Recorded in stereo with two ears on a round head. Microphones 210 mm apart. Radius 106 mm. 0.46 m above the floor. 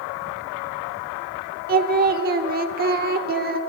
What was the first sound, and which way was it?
Singing, 40° right (ahead or behind).